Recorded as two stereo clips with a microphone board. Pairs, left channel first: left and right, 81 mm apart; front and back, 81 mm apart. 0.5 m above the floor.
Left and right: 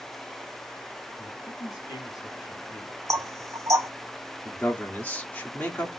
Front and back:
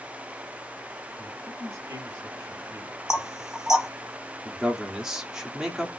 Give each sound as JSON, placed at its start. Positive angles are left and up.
{"t": 1.2, "sound": "a man speaking", "azimuth_deg": 125, "distance_m": 4.0}
{"t": 3.1, "sound": "knocking", "azimuth_deg": -100, "distance_m": 1.0}
{"t": 4.5, "sound": "a man speaking", "azimuth_deg": 115, "distance_m": 1.2}